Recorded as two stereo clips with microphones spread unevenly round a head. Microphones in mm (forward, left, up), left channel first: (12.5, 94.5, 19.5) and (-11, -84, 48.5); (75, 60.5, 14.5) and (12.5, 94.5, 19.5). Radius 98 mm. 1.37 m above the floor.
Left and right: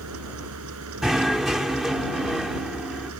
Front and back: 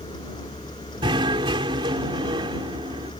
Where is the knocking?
175° left.